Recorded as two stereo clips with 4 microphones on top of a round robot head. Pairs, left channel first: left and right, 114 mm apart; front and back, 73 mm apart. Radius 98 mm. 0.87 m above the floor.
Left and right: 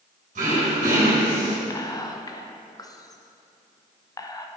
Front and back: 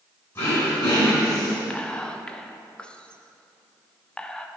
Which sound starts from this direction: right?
Throat clearing, at 0.3 s.